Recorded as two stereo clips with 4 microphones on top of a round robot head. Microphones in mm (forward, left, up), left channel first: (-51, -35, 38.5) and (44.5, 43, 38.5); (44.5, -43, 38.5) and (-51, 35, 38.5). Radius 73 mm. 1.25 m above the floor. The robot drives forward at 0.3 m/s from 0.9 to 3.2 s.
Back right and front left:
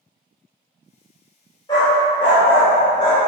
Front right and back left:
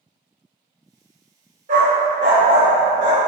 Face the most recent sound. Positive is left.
turn(degrees=170)